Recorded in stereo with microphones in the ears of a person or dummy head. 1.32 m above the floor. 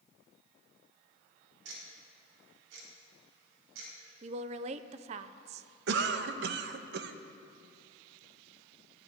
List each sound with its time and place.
1.6 s ticking: 70° right (ahead or behind), 4 m
4.2 s a woman speaking: 35° right (ahead or behind), 0.5 m
5.9 s a cough: 65° right (ahead or behind), 1.0 m